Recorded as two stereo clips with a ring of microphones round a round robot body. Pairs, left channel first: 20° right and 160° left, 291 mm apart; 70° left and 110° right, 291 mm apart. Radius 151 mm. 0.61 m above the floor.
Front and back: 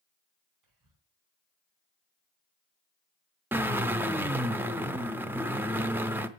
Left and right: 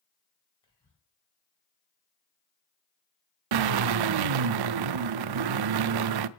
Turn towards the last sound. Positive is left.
turn(degrees=-120)